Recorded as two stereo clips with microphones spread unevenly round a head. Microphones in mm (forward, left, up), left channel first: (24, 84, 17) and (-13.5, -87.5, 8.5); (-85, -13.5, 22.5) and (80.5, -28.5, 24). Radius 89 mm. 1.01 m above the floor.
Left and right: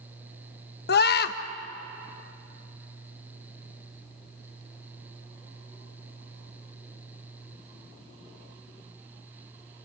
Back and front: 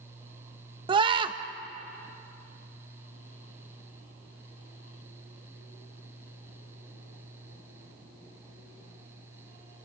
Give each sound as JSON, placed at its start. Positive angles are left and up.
{"t": 0.9, "sound": "a scream", "azimuth_deg": 55, "distance_m": 1.3}